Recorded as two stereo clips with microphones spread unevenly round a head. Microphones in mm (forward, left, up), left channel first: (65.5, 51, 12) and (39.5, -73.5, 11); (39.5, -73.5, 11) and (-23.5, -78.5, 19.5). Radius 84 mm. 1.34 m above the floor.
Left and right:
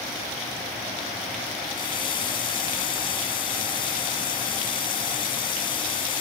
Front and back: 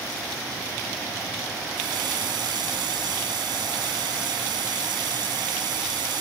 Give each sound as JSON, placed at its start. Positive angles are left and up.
{"t": 1.7, "sound": "a running tap", "azimuth_deg": 145}